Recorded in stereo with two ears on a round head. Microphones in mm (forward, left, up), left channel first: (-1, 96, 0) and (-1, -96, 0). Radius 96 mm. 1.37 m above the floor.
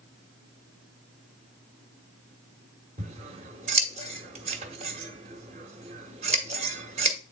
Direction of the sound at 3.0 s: 30° right (ahead or behind).